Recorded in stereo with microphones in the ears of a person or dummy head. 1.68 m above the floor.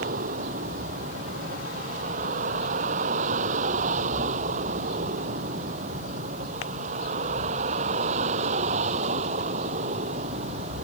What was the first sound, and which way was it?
A vehicle, 50° right (ahead or behind).